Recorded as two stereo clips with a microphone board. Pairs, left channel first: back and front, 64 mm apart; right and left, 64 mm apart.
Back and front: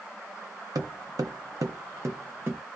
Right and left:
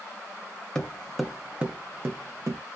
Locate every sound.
0.8 s footsteps: 15° right, 0.8 m; by 2.6 s 60° left, 0.8 m